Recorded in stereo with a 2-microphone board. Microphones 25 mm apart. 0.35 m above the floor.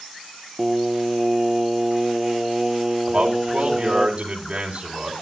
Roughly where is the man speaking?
Right.